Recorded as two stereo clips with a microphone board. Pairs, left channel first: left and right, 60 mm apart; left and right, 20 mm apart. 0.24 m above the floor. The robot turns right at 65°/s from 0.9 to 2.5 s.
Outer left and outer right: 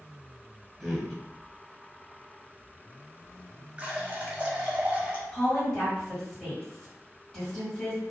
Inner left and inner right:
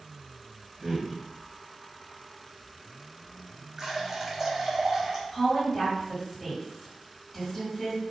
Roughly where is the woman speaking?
Centre.